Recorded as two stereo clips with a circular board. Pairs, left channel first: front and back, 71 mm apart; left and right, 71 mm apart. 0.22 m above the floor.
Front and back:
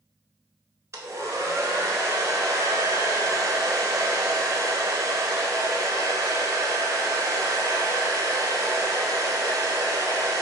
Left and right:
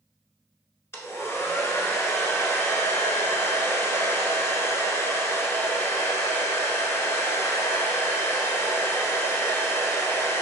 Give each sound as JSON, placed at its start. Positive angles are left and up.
{"t": 0.9, "sound": "a hair dryer", "azimuth_deg": 140, "distance_m": 0.7}